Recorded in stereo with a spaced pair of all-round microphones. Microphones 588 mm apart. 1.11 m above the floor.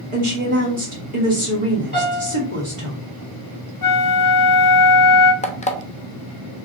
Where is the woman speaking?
55° right (ahead or behind), 1.5 m.